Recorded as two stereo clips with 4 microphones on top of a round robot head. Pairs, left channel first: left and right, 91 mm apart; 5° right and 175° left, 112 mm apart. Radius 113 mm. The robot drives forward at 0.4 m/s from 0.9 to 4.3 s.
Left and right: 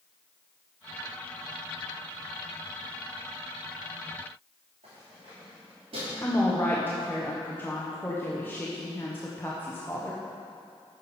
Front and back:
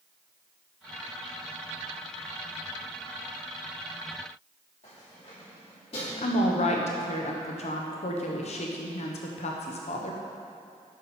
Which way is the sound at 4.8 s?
50° right.